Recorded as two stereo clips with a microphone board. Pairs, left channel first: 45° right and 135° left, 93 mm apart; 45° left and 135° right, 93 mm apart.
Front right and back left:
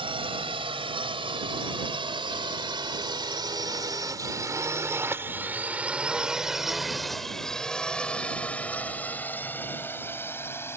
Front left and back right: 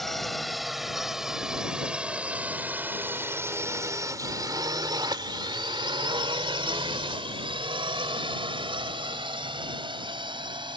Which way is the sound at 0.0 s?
130° left.